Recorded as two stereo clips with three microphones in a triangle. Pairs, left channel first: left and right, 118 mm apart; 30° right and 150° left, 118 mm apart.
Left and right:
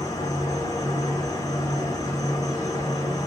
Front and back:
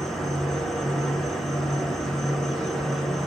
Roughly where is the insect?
Ahead left.